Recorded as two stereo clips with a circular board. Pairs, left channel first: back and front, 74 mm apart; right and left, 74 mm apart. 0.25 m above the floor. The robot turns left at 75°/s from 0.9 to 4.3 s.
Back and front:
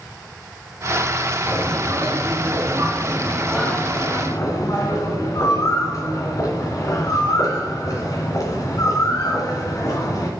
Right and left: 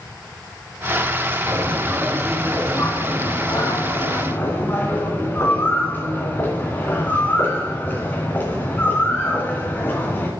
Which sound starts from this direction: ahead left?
A bird, at 1.5 s.